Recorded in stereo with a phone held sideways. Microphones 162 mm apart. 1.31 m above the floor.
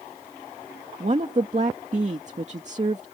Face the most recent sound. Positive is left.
turn(degrees=-45)  # may be behind; listen again after turning